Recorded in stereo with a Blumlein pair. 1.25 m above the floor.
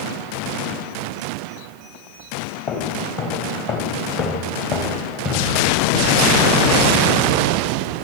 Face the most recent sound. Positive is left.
turn(degrees=35)